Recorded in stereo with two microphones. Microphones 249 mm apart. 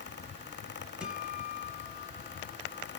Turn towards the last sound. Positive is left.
turn(degrees=-5)  # may be behind; listen again after turning